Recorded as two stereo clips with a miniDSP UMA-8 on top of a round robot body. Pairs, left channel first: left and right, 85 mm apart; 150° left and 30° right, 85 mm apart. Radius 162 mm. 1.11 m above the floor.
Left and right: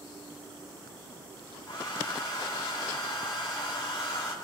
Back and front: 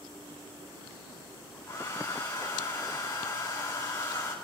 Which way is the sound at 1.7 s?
100° left.